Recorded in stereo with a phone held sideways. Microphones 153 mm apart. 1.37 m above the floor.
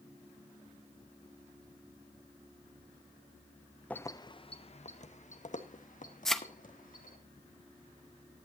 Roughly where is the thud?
Centre.